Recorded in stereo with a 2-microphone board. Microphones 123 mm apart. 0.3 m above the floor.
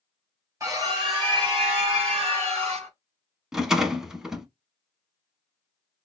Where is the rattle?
5° right (ahead or behind), 0.6 m.